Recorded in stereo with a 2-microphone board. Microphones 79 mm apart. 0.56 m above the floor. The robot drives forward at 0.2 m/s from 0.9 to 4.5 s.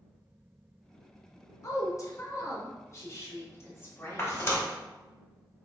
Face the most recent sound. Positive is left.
turn(degrees=30)  # may be behind; listen again after turning